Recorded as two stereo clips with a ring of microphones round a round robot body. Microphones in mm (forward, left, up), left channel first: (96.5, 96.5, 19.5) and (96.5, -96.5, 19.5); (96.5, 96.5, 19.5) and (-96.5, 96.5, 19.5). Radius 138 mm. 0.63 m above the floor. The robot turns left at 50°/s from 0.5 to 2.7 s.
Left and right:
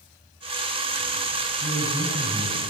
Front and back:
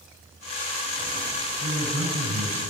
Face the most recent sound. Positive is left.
turn(degrees=175)